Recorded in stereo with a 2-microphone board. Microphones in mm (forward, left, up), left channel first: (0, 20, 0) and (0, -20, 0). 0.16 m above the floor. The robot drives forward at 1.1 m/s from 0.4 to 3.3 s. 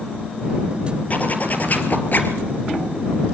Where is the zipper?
40° left (ahead or behind), 4 m; by 2.4 s 50° left (ahead or behind), 3 m.